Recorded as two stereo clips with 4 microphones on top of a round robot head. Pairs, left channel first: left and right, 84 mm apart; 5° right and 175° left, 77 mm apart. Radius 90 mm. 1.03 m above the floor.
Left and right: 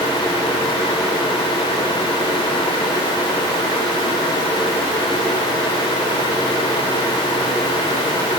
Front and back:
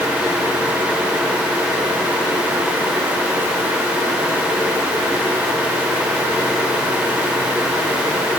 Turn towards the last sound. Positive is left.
No sound to turn to.